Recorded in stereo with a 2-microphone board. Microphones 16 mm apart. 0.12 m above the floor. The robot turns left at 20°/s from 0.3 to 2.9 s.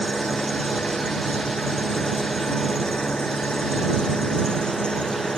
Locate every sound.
0.0 s an engine running: 130° left; by 5.4 s 80° left